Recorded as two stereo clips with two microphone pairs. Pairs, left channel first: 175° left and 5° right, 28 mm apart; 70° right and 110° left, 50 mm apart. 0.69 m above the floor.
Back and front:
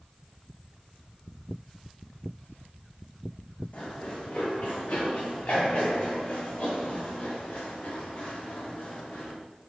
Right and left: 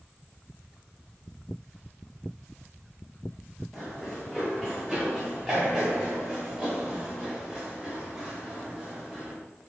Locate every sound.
3.7 s running footsteps: 150° right, 3 m; by 9.3 s 165° right, 7 m